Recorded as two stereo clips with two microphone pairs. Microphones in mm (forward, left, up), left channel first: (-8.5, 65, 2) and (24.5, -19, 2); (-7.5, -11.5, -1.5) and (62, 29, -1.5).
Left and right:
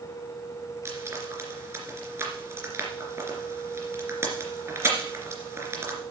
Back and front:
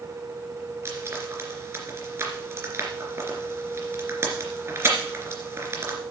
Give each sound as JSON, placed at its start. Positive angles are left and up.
{"t": 0.8, "sound": "frying", "azimuth_deg": -15, "distance_m": 2.5}